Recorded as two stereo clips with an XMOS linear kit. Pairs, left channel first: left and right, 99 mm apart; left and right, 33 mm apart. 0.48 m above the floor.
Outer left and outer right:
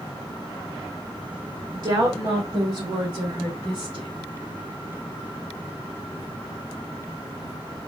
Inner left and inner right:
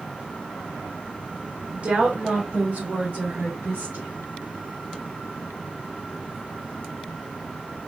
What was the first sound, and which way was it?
A woman speaking, 45° right (ahead or behind).